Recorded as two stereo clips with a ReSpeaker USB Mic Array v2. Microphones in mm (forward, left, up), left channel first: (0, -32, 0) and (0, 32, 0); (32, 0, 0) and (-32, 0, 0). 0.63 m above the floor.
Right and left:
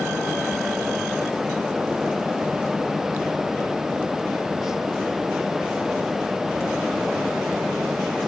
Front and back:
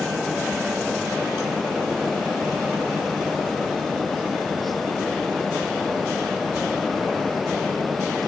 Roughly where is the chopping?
No chopping in this recording.